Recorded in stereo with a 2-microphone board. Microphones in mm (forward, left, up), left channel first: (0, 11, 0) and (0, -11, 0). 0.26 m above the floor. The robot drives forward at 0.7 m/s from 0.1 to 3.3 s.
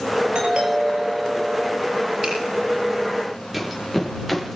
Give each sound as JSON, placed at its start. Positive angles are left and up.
{"t": 0.3, "sound": "a doorbell", "side_deg": -60, "distance_m": 6.5}
{"t": 2.2, "sound": "a finger snap", "side_deg": -30, "distance_m": 9.0}
{"t": 3.5, "sound": "running footsteps", "side_deg": 0, "distance_m": 5.0}